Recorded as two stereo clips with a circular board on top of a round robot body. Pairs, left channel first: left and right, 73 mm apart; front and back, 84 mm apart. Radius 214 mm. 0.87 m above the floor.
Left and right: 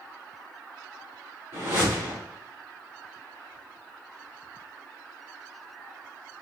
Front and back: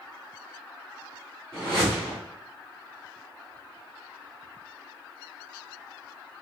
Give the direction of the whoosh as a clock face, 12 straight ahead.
4 o'clock.